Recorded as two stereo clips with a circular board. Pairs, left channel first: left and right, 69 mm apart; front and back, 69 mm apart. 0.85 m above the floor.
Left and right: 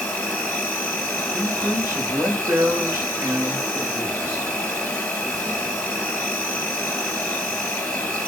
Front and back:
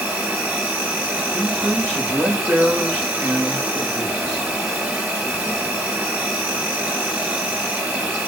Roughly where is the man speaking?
Behind right.